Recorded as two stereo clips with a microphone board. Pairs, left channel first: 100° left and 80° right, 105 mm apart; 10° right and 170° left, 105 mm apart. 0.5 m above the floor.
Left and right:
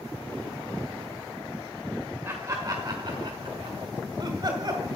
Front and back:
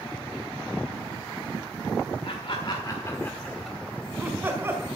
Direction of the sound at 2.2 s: 20° right.